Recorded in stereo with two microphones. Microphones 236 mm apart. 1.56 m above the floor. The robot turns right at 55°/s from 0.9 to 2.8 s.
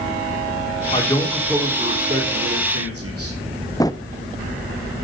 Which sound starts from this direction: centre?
A drawer, at 3.8 s.